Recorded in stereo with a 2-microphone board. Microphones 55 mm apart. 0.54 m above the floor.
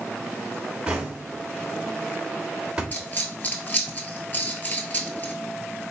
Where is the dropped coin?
35° left (ahead or behind), 0.8 m.